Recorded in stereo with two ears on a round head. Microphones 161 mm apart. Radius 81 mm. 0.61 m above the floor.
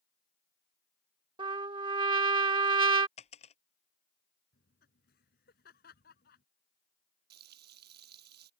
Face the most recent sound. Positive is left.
turn(degrees=-55)  # may be behind; listen again after turning